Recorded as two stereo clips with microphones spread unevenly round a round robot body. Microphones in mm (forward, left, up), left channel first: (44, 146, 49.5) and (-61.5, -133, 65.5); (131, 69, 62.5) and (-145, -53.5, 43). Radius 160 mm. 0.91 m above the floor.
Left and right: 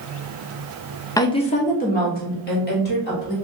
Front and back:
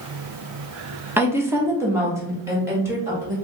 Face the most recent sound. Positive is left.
turn(degrees=125)